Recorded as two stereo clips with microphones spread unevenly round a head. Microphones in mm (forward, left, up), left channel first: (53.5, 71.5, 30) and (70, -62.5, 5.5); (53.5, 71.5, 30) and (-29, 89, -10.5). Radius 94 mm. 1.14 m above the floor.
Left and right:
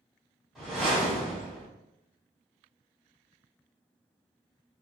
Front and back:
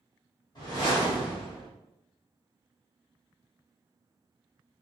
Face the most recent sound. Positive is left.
turn(degrees=10)